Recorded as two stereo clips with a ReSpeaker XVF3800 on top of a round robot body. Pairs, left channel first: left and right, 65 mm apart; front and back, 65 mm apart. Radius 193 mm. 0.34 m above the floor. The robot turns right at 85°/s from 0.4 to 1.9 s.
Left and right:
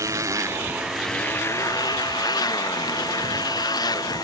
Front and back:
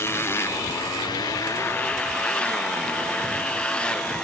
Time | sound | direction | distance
0.0 | a motorcycle | 50° right | ?